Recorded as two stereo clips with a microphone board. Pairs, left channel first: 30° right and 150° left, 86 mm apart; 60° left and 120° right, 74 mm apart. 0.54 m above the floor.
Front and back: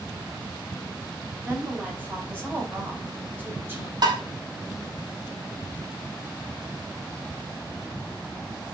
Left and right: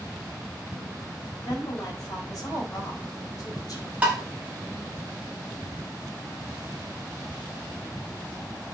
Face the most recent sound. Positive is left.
turn(degrees=170)